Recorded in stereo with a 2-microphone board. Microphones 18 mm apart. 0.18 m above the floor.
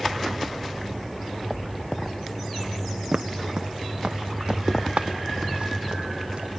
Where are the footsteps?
35° right (ahead or behind), 0.5 m; by 6.5 s 75° right (ahead or behind), 2 m.